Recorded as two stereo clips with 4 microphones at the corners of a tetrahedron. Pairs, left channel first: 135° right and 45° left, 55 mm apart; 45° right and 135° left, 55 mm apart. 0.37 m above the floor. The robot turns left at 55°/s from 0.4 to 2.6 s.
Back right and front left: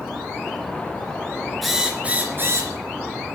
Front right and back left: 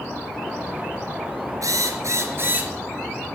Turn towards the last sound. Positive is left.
turn(degrees=80)